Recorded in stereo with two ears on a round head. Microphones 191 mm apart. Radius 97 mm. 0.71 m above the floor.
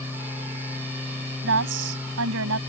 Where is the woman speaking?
65° right (ahead or behind); by 2.6 s 80° right.